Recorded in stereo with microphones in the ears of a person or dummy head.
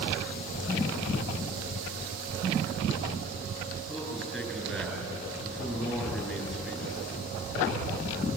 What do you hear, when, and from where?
3.9 s a man speaking: centre (ahead or behind), 9.5 m